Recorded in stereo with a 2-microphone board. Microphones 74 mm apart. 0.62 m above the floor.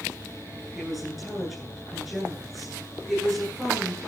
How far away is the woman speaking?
About 9.5 m.